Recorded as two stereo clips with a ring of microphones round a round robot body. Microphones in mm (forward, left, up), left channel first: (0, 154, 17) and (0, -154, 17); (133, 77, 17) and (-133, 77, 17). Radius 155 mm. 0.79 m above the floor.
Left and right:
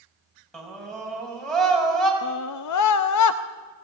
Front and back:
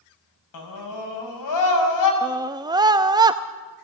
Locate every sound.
0.5 s a scream: straight ahead, 6 m
2.2 s a scream: 105° left, 0.7 m